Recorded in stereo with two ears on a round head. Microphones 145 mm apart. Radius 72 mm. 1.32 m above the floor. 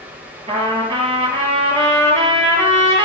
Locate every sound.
0.5 s a trumpet: 35° right (ahead or behind), 2.5 m